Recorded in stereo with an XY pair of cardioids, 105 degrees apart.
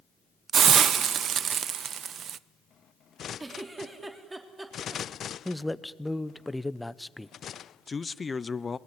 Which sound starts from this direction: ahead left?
A man speaking, at 7.9 s.